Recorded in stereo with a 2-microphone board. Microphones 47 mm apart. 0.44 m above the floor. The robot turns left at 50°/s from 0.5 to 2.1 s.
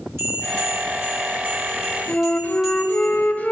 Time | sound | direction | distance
0.2 | a bell | 90° right | 2.5 m
2.1 | a flute | 35° left (ahead or behind) | 0.6 m